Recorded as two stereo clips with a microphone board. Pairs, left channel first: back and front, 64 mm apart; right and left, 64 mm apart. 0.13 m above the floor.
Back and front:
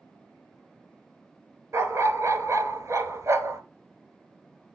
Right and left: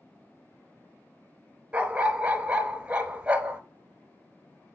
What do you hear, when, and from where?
1.7 s a dog barking: 20° left, 0.9 m